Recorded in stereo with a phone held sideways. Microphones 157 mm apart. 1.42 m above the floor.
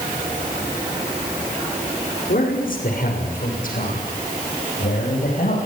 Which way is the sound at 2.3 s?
60° left (ahead or behind).